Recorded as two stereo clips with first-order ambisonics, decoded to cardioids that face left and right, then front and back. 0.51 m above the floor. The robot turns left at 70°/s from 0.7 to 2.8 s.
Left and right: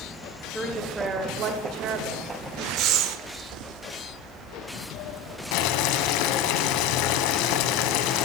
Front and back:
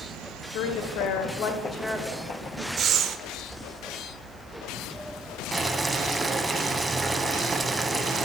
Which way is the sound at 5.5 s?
100° left.